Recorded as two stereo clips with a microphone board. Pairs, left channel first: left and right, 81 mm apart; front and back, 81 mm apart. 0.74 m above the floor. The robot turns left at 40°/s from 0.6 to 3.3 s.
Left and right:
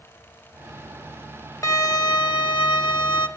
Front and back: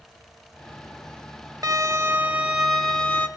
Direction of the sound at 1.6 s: 140° left.